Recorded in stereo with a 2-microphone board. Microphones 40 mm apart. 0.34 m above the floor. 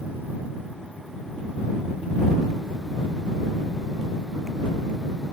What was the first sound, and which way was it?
Only background noise.